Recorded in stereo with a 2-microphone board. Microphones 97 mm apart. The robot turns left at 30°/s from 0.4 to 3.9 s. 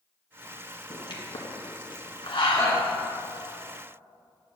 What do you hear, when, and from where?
0.9 s a pop: 45° left (ahead or behind), 1.4 m; by 2.8 s 60° left (ahead or behind), 1.4 m
2.5 s a shout: 30° left (ahead or behind), 2.5 m; by 2.8 s 35° left (ahead or behind), 2.5 m